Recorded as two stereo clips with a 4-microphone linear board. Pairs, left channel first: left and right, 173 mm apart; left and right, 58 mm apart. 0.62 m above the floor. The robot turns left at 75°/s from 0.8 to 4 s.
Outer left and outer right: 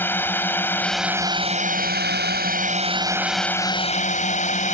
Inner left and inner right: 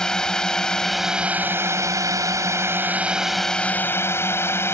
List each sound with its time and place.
0.0 s a drone: 10° left; by 4.7 s 130° left